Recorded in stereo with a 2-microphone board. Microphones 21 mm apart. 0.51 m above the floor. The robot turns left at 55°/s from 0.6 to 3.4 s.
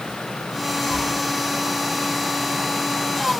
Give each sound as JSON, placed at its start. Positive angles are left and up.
{"t": 0.8, "sound": "tearing paper", "side_deg": 70, "distance_m": 6.5}